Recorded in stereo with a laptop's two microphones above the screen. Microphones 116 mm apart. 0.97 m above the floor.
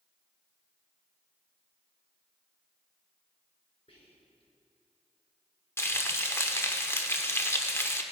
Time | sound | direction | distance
3.9 | whispering | 60° left (ahead or behind) | 3 m
5.8 | frying | 20° left (ahead or behind) | 1.1 m